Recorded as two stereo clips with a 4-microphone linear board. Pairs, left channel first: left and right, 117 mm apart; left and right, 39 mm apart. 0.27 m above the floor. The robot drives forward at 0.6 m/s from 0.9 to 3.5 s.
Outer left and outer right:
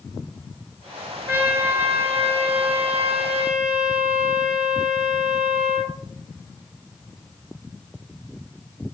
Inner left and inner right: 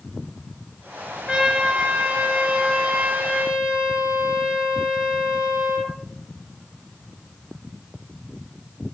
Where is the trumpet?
15° right (ahead or behind), 3 m; by 6.0 s 10° right (ahead or behind), 4 m.